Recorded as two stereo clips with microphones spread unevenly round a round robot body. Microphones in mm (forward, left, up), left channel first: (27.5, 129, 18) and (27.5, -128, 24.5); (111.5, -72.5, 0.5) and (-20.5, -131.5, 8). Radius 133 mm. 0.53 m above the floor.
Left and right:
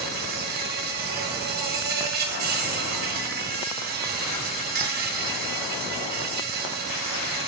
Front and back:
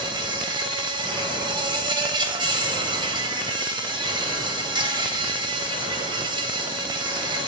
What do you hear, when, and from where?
0.0 s an insect: 115° right, 0.9 m